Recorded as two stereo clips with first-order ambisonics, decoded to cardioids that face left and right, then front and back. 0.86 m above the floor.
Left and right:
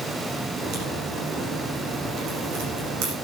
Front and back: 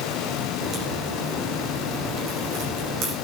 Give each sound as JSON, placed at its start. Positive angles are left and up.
{"t": 0.6, "sound": "a crack", "azimuth_deg": -125, "distance_m": 9.0}